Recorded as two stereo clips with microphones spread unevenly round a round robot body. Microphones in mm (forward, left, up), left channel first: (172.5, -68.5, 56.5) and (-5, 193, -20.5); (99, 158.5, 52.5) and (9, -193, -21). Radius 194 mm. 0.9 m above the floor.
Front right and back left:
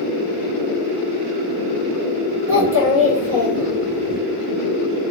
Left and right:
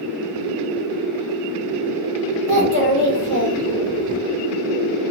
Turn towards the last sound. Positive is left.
turn(degrees=-160)